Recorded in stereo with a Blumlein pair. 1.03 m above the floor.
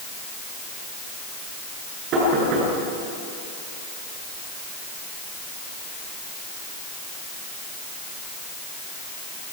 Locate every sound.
2.1 s knocking: 35° right, 9 m